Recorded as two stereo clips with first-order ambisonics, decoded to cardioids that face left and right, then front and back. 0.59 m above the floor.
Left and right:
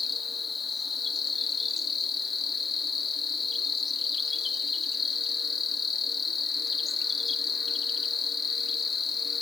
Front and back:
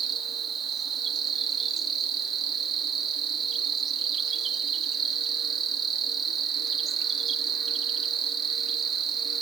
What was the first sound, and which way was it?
An insect, 135° left.